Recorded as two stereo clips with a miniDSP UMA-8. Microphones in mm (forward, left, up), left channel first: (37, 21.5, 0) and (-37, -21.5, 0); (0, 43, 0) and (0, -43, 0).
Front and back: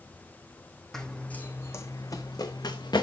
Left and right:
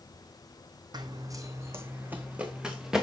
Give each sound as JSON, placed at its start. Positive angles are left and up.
{"t": 0.9, "sound": "running footsteps", "azimuth_deg": -55, "distance_m": 1.1}